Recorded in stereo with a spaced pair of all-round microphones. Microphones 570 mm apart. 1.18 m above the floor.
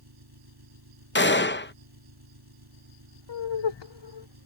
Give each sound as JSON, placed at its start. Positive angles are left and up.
{"t": 0.0, "sound": "an engine running", "side_deg": -40}
{"t": 1.1, "sound": "a gunshot", "side_deg": 20}
{"t": 3.3, "sound": "laughter", "side_deg": 50}